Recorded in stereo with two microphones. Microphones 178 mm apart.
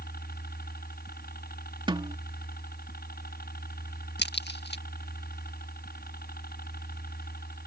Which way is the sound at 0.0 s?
60° left (ahead or behind).